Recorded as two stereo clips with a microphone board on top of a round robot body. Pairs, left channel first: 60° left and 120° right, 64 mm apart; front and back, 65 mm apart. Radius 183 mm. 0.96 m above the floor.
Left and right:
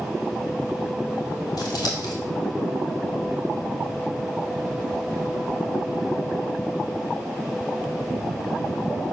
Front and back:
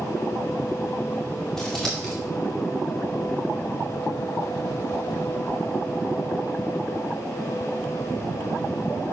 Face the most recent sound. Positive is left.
turn(degrees=80)